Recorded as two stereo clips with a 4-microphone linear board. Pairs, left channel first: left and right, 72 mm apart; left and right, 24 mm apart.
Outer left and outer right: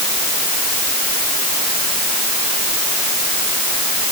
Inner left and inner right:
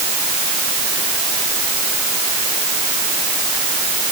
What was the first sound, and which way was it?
Only background noise.